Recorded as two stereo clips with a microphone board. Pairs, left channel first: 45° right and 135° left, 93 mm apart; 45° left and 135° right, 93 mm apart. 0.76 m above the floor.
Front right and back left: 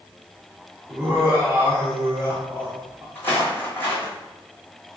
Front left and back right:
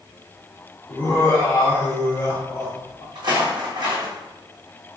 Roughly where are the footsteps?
Right.